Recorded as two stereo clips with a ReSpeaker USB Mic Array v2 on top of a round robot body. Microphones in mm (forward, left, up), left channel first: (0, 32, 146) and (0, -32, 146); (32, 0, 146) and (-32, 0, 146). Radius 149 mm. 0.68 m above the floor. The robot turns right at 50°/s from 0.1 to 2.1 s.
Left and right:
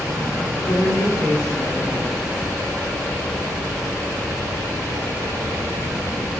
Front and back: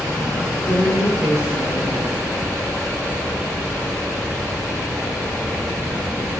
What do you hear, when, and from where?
0.6 s a woman speaking: 135° left, 4.5 m; by 2.2 s 150° right, 4.5 m